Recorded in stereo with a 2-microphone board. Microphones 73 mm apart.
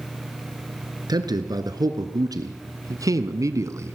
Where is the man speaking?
65° right (ahead or behind), 3 m; by 4.0 s 40° right (ahead or behind), 1.5 m.